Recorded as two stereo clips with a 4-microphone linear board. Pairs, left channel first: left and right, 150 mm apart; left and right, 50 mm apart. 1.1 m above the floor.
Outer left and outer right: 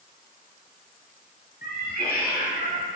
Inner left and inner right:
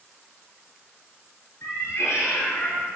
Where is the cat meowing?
80° left, 5 m; by 3.0 s 75° left (ahead or behind), 5 m.